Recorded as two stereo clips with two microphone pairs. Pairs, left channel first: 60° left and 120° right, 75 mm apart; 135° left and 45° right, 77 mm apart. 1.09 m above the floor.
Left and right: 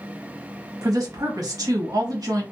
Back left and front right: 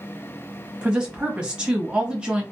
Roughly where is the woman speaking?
Behind right.